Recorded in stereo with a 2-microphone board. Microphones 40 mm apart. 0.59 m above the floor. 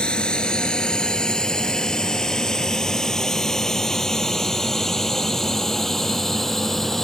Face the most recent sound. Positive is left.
turn(degrees=10)  # may be behind; listen again after turning